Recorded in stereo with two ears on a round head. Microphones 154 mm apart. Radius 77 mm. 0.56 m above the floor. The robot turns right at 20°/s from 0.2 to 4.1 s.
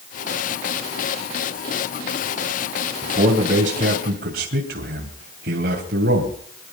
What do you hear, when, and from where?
3.0 s a man speaking: 40° right (ahead or behind), 3 m; by 6.7 s 60° right (ahead or behind), 3 m